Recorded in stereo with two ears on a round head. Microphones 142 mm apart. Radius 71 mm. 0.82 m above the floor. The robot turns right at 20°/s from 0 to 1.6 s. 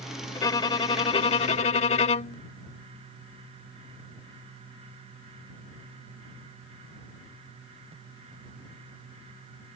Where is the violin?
25° left (ahead or behind); by 2.4 s 45° left (ahead or behind).